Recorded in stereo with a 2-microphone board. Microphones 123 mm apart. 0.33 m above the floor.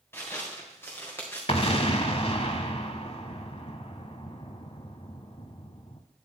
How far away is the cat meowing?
No cat meowing in this recording.